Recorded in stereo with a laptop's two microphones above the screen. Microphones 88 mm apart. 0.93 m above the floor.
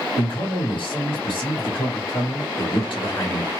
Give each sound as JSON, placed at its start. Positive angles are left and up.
{"t": 0.2, "sound": "a man speaking", "side_deg": 70, "distance_m": 1.7}